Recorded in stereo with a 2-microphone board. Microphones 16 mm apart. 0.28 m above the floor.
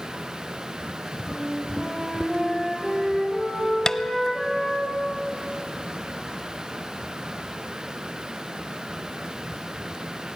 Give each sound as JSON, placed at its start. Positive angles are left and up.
{"t": 1.3, "sound": "a flute", "side_deg": -45, "distance_m": 9.5}
{"t": 3.9, "sound": "tapping", "side_deg": 35, "distance_m": 0.6}